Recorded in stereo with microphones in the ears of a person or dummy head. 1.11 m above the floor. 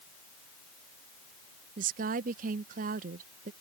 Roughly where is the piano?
I don't hear a piano.